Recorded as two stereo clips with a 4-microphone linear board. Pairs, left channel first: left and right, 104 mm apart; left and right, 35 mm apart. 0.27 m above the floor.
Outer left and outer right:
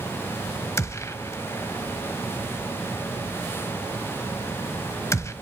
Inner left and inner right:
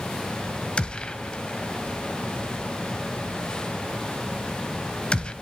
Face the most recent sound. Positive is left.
turn(degrees=25)  # may be behind; listen again after turning